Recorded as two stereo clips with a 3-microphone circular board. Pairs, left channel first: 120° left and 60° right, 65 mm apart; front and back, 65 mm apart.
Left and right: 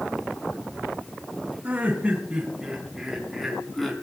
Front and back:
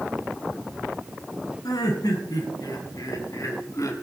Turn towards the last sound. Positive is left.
turn(degrees=35)